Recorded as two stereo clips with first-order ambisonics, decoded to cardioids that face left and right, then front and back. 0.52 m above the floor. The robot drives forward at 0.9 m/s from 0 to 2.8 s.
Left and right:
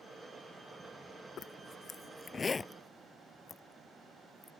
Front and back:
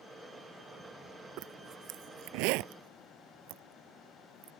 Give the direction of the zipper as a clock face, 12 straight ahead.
7 o'clock.